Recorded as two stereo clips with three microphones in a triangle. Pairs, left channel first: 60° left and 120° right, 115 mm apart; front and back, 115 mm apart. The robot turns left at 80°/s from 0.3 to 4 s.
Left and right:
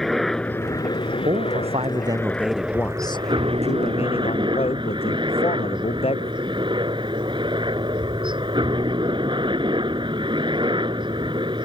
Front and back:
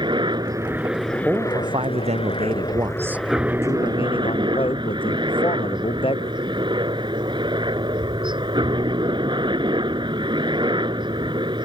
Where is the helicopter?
145° left; by 11.7 s 150° right.